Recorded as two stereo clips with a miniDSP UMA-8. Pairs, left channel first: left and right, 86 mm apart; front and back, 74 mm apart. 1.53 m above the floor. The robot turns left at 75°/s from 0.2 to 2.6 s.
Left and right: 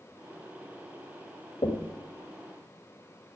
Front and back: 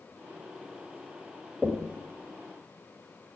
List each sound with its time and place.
1.6 s knocking: 100° left, 1.6 m; by 2.0 s 75° left, 1.6 m